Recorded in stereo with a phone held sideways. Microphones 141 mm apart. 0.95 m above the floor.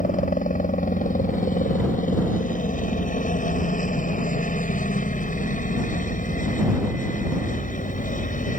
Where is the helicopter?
65° left (ahead or behind).